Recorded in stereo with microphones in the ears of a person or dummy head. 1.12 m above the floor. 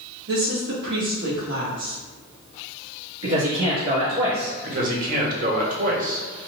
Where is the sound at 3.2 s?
75° right (ahead or behind), 1.7 m.